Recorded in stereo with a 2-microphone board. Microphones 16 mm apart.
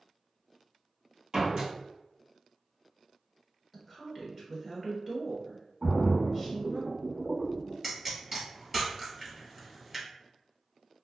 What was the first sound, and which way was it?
A door slam, 50° right (ahead or behind).